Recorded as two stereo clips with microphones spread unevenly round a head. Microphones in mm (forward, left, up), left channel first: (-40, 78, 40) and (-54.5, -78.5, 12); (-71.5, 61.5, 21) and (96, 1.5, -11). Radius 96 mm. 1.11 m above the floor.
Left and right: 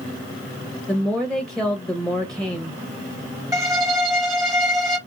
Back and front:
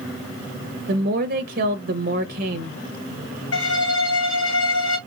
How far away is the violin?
About 4 m.